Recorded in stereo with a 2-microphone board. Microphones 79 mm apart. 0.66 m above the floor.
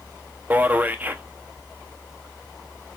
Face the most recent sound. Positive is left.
turn(degrees=-20)  # may be behind; listen again after turning